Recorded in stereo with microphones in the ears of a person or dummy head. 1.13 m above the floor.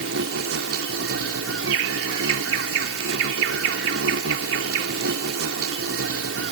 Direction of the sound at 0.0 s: 80° right.